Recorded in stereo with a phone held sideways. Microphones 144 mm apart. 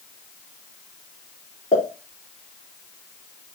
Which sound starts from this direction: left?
A pop, at 1.7 s.